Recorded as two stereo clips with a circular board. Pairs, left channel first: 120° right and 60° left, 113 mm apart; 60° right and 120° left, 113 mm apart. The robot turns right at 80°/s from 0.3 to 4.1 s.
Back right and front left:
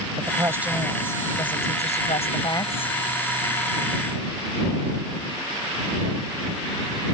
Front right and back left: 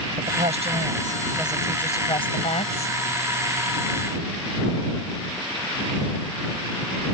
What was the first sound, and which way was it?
A woman speaking, 110° left.